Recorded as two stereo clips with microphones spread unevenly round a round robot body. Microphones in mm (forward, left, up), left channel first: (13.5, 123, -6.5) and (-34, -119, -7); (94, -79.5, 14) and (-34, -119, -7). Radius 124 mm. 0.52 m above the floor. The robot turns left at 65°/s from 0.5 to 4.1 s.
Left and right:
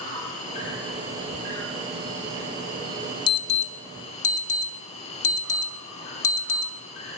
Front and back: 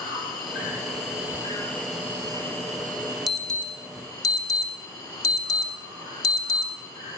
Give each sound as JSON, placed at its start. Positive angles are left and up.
{"t": 0.0, "sound": "an insect", "azimuth_deg": 20, "distance_m": 3.0}
{"t": 3.3, "sound": "an alarm", "azimuth_deg": 130, "distance_m": 0.9}